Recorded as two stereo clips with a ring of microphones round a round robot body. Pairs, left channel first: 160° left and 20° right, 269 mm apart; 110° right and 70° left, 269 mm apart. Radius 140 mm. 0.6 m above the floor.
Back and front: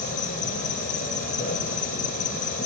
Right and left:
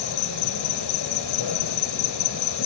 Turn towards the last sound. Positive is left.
turn(degrees=-140)